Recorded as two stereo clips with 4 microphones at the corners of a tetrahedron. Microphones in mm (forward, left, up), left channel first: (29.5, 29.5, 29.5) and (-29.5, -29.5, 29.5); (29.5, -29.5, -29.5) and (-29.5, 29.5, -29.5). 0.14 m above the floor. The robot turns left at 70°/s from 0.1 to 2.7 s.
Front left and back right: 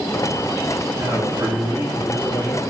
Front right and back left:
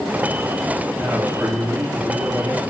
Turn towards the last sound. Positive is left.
turn(degrees=85)